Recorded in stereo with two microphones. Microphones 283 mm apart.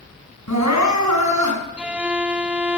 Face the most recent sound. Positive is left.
turn(degrees=-5)  # may be behind; listen again after turning